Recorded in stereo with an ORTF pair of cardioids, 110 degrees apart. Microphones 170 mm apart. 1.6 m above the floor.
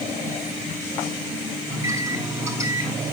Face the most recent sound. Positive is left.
turn(degrees=-15)